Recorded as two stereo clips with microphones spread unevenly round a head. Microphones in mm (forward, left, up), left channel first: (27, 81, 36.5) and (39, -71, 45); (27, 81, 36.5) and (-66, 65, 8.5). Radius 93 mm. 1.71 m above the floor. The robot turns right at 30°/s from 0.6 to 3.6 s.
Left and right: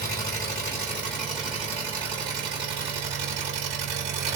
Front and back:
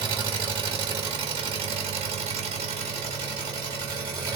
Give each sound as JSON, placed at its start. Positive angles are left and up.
{"t": 0.0, "sound": "an engine running", "azimuth_deg": 165, "distance_m": 1.1}